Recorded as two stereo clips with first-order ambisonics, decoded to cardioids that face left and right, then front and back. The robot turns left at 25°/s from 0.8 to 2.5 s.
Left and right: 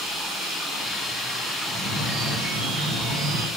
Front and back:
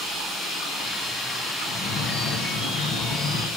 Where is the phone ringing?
30° right, 7.5 m; by 3.5 s 50° right, 7.5 m.